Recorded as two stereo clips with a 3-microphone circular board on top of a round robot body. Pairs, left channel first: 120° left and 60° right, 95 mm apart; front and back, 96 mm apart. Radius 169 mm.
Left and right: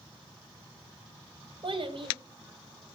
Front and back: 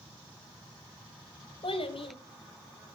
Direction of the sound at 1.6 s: 25° right.